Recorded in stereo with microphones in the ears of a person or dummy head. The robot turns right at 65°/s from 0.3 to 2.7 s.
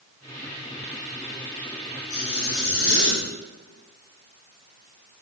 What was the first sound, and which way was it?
A zipper, 55° left.